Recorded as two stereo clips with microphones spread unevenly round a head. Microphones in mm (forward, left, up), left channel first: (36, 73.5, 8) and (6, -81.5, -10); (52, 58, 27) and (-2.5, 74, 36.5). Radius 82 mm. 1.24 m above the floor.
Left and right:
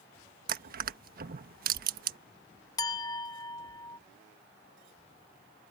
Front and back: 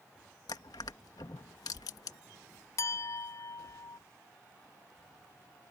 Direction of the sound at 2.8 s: 15° left.